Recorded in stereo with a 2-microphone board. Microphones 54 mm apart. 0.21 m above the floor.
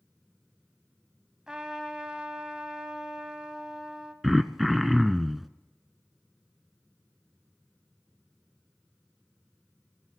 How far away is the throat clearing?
About 0.5 m.